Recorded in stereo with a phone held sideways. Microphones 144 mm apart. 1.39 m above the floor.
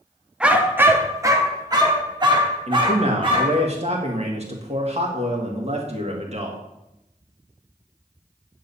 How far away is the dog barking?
About 0.8 m.